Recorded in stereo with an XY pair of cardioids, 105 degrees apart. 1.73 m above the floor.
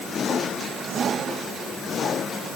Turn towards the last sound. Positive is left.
No sound to turn to.